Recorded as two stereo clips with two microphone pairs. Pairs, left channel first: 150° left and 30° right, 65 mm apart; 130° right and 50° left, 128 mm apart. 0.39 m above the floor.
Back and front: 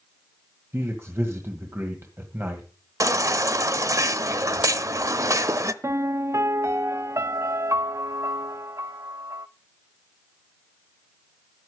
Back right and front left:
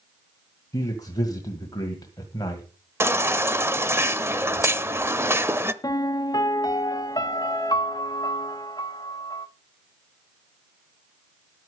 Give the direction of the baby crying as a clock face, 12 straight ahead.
12 o'clock.